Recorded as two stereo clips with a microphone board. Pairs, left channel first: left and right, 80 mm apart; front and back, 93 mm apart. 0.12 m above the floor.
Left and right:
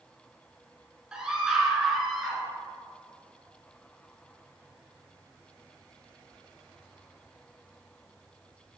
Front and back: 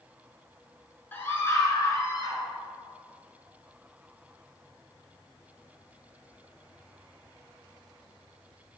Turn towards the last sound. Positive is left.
turn(degrees=0)